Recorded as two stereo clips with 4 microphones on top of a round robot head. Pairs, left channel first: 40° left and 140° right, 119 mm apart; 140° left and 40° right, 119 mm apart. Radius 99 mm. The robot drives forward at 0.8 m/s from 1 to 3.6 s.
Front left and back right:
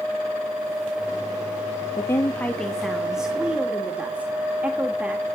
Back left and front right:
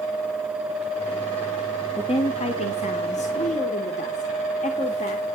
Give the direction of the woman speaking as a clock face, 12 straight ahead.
9 o'clock.